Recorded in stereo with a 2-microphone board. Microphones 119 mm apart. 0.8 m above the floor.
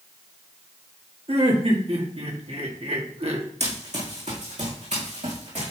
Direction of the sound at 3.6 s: 70° right (ahead or behind).